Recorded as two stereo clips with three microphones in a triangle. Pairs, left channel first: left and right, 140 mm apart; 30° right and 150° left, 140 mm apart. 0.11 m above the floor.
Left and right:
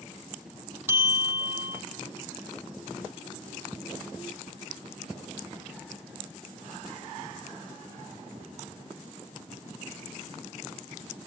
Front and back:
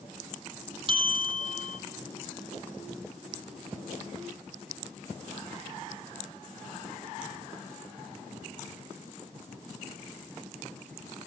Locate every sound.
0.9 s a bell: 165° right, 1.5 m